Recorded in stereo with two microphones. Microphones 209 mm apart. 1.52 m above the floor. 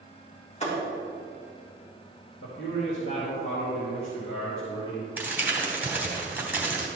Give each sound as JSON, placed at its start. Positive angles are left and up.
{"t": 0.6, "sound": "a thud", "side_deg": 30, "distance_m": 3.5}
{"t": 2.4, "sound": "a man speaking", "side_deg": 85, "distance_m": 2.5}
{"t": 5.2, "sound": "crumpling", "side_deg": -10, "distance_m": 2.5}